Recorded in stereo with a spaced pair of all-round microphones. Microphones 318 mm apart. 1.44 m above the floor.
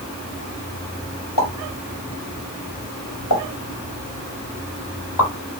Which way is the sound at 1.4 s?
80° left.